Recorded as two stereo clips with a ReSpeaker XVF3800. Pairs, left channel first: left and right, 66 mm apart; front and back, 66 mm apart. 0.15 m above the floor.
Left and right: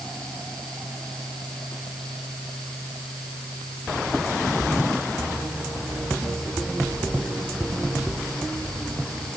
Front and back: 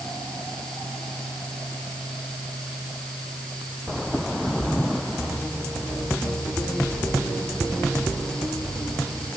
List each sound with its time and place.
Only background noise.